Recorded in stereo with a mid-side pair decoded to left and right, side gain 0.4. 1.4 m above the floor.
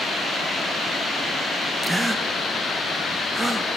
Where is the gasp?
20° right, 1.3 m.